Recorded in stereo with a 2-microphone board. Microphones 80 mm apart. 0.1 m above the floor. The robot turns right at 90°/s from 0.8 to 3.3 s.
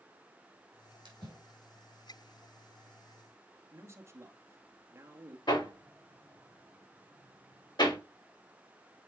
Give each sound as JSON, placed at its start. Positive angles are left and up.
{"t": 1.1, "sound": "a splash", "side_deg": -60, "distance_m": 4.0}
{"t": 3.7, "sound": "a man speaking", "side_deg": -35, "distance_m": 1.6}
{"t": 5.5, "sound": "hammering", "side_deg": 65, "distance_m": 5.0}